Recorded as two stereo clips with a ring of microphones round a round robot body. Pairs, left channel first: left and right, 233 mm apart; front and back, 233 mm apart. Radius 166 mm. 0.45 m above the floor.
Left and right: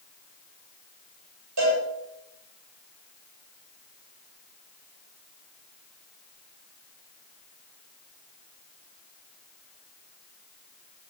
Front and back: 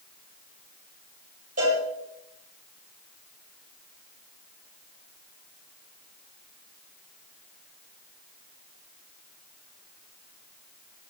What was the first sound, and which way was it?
A cowbell, 115° right.